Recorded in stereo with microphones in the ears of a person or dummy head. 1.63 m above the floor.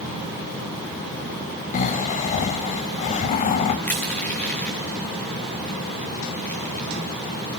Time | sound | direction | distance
1.7 | snoring | 40° left (ahead or behind) | 0.5 m
3.9 | crushing | 5° left (ahead or behind) | 1.3 m